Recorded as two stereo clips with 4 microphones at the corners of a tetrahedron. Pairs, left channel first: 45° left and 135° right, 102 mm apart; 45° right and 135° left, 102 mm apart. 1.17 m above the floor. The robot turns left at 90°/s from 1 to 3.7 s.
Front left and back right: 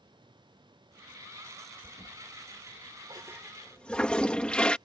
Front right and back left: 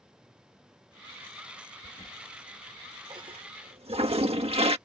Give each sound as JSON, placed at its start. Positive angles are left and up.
{"t": 1.8, "sound": "a toilet flushing", "azimuth_deg": -65}